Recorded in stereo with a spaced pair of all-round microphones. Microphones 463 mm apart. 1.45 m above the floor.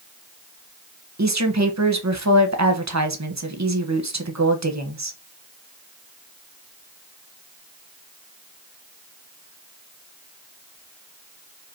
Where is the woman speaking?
35° right (ahead or behind), 1.0 m.